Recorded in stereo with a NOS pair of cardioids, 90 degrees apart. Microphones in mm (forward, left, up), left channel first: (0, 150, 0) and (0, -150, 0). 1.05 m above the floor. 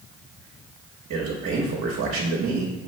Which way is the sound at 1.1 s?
55° right.